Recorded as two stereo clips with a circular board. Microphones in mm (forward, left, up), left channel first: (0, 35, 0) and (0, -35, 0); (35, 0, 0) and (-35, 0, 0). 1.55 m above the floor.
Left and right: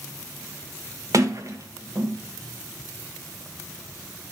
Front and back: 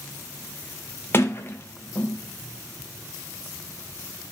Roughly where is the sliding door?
Ahead right.